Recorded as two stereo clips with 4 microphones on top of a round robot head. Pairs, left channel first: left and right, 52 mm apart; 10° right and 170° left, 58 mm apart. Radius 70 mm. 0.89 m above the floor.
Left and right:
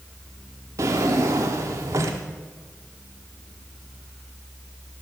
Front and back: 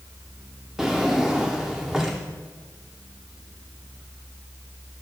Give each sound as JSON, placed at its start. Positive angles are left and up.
{"t": 0.8, "sound": "a drawer", "azimuth_deg": -105, "distance_m": 0.5}